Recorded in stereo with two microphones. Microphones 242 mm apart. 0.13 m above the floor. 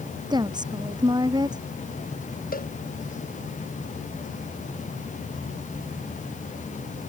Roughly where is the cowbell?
Left.